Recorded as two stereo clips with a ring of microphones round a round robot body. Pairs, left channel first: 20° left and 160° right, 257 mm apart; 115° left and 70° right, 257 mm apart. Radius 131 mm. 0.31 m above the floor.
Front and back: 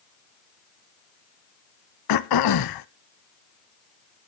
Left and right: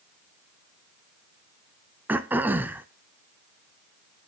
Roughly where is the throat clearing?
Ahead.